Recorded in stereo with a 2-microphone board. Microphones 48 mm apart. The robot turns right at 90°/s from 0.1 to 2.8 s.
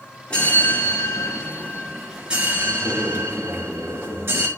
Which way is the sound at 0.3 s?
20° left.